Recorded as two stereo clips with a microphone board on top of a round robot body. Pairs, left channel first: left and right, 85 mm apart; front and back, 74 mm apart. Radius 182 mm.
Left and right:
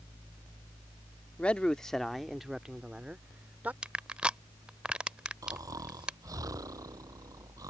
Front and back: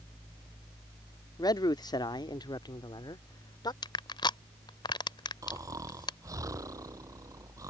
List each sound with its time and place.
1.4 s a man speaking: 15° left; by 3.7 s 20° right
3.8 s crushing: 10° right
5.4 s snoring: 135° right